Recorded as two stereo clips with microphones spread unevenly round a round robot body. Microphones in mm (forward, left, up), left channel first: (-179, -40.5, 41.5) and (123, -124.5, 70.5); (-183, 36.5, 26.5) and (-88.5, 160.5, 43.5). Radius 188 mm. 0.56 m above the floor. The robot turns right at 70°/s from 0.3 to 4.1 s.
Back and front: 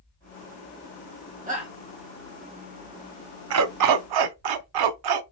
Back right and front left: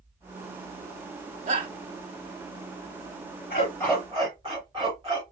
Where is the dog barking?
65° right, 0.5 m; by 5.2 s 25° right, 0.5 m.